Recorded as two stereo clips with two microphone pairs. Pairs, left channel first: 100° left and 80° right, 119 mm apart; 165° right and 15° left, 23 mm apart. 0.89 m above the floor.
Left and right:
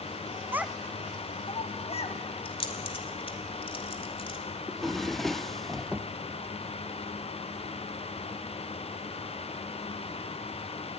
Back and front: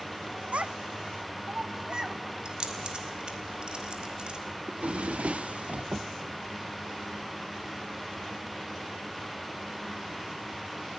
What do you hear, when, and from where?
0.5 s a child speaking: 10° right, 0.5 m; by 2.2 s 70° left, 1.1 m
2.5 s keys jangling: 55° left, 1.9 m
4.7 s a drawer: 10° left, 0.6 m